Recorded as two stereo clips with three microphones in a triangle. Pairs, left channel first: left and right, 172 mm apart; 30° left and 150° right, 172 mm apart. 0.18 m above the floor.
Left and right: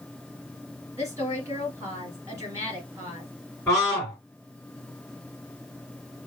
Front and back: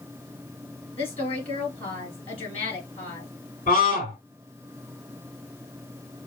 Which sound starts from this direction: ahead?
A scream, at 3.7 s.